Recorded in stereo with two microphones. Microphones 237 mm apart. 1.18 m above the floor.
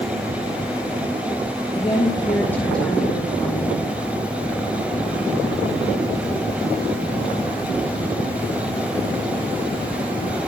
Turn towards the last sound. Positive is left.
turn(degrees=-5)  # may be behind; listen again after turning